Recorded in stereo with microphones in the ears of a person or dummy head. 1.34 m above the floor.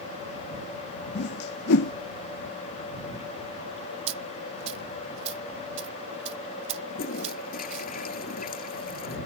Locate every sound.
1.1 s a whoosh: 55° left (ahead or behind)
4.1 s a dropped coin: 35° right (ahead or behind)
6.9 s a toilet flushing: 50° left (ahead or behind)